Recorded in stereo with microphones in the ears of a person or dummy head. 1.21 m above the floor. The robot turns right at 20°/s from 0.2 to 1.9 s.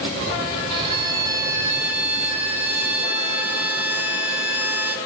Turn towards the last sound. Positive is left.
turn(degrees=-5)  # may be behind; listen again after turning